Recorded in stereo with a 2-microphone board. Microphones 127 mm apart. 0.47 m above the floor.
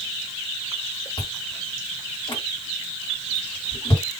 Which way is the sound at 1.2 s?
35° left (ahead or behind).